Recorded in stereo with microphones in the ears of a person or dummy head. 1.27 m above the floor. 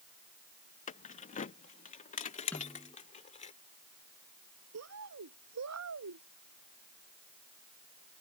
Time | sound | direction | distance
0.9 | keys jangling | 40° left (ahead or behind) | ?
2.5 | a snare drum | 15° left (ahead or behind) | ?
4.7 | a bird | 85° right | ?